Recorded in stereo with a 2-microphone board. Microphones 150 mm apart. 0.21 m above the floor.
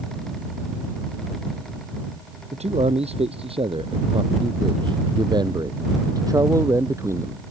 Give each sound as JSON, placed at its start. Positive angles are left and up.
{"t": 2.5, "sound": "a man speaking", "side_deg": -45}